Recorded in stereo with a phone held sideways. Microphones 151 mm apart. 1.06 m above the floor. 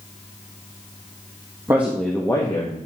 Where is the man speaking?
20° right (ahead or behind), 1.1 m; by 2.8 s 35° left (ahead or behind), 1.4 m.